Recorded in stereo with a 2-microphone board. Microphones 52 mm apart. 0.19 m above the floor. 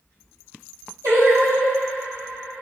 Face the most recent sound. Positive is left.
turn(degrees=-80)